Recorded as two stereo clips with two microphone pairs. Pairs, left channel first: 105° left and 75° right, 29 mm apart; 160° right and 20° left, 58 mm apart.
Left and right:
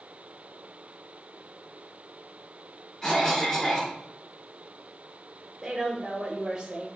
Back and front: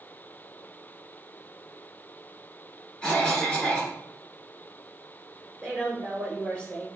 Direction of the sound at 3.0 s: 150° left.